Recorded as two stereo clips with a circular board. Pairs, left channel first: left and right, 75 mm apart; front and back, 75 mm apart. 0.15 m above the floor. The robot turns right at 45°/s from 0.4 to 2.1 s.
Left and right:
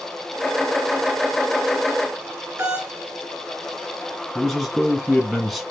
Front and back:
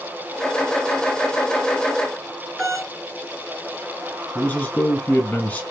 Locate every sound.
2.6 s a doorbell: 80° right, 2.5 m
4.3 s a man speaking: 5° right, 1.1 m